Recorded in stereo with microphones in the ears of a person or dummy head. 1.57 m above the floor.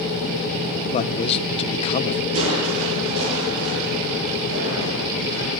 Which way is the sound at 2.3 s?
80° right.